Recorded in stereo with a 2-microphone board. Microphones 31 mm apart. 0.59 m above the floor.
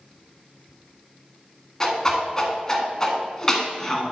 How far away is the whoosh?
About 1.8 m.